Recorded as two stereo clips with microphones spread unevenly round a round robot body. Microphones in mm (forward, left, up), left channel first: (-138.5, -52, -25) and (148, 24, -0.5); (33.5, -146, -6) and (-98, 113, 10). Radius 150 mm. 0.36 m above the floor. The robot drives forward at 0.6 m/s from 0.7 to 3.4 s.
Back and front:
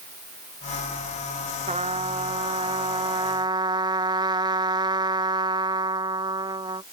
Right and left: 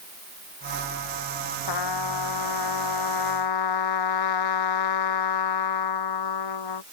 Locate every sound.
1.7 s a trumpet: 55° right; by 6.8 s 60° right